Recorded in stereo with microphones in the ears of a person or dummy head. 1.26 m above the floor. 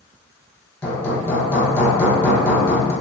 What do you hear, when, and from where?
0.8 s hammering: 10° left (ahead or behind), 0.8 m